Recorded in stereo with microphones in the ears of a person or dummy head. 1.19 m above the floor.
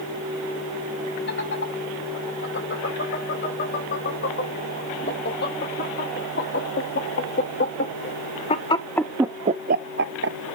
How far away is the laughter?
About 6 m.